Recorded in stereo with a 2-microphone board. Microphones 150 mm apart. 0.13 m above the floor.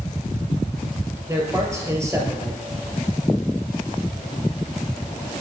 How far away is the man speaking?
About 3 m.